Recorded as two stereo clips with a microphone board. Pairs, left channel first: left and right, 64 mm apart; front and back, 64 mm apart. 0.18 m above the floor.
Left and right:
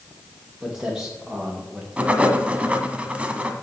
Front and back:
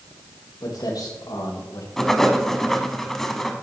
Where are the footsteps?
5° right, 4.5 m.